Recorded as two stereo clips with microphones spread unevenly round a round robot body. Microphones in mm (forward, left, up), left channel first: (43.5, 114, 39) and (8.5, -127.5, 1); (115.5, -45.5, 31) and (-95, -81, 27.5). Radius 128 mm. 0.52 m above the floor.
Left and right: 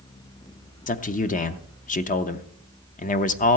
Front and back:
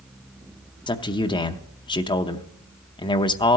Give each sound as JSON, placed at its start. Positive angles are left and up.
{"t": 0.9, "sound": "a man speaking", "azimuth_deg": 50, "distance_m": 0.6}